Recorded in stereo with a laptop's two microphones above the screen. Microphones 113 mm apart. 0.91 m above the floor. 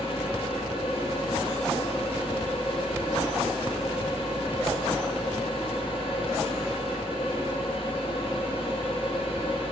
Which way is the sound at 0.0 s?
55° left (ahead or behind).